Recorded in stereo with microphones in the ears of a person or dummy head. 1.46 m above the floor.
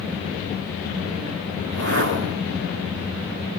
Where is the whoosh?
65° right (ahead or behind), 3.5 m.